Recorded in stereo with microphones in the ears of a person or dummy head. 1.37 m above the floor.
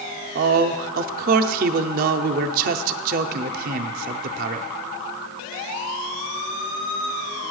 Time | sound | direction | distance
0.3 | a man speaking | 50° right (ahead or behind) | 0.5 m